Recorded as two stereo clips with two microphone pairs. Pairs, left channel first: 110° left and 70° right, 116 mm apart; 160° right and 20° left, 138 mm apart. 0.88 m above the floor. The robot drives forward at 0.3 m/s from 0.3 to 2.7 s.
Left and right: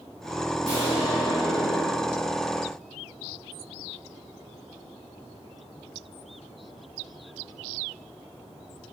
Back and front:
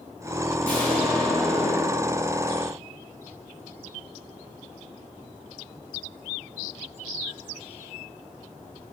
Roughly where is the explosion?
Behind left.